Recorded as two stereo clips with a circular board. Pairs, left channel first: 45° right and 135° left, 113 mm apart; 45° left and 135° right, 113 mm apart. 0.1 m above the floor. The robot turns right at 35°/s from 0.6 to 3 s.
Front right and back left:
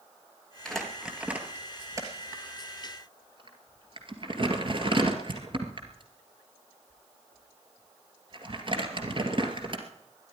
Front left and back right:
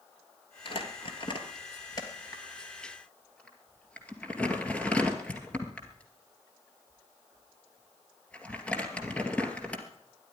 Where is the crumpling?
40° left, 2 m; by 9.8 s 120° left, 2 m.